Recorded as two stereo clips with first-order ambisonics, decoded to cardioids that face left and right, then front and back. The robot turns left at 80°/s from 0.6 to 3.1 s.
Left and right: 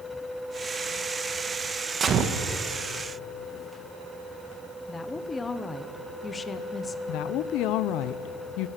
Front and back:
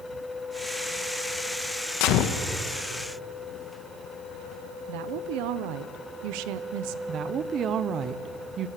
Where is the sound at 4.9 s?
165° left, 1.0 m.